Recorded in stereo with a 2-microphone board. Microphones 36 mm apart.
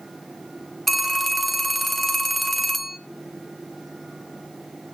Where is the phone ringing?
Centre (ahead or behind), 0.6 m.